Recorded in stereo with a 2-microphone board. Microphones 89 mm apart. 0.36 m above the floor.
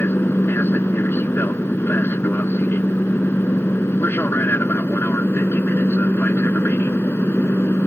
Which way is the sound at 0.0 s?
25° left (ahead or behind).